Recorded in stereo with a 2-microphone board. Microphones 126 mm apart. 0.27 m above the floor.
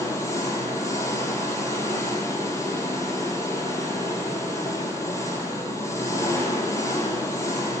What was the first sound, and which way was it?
An engine running, 20° left (ahead or behind).